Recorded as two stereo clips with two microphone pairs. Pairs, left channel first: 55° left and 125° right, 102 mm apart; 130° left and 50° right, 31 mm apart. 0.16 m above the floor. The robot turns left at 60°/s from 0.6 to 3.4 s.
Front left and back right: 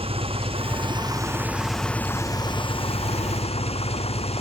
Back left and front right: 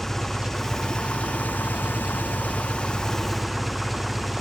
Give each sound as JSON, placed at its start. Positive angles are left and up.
{"t": 0.0, "sound": "an engine running", "azimuth_deg": -150}